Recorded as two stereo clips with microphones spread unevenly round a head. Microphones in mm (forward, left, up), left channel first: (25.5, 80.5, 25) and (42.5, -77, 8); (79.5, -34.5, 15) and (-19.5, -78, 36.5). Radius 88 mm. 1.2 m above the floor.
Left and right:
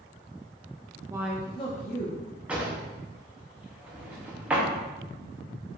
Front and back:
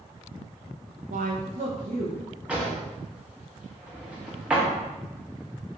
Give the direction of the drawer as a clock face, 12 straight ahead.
6 o'clock.